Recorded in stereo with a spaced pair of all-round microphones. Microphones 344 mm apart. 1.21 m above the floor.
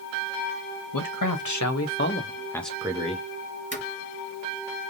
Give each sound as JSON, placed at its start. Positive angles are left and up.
{"t": 0.9, "sound": "a man speaking", "side_deg": 70, "distance_m": 1.4}
{"t": 3.7, "sound": "footsteps", "side_deg": 35, "distance_m": 1.4}